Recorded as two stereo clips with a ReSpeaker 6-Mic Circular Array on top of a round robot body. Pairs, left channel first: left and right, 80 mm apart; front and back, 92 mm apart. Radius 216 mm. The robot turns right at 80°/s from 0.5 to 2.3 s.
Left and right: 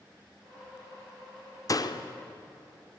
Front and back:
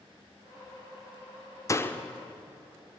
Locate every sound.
1.7 s a door slam: 50° left, 1.4 m; by 2.0 s 80° left, 1.4 m